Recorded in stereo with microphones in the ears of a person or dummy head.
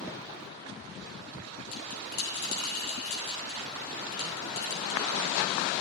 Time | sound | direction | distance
1.7 | a bell | 55° left (ahead or behind) | 4 m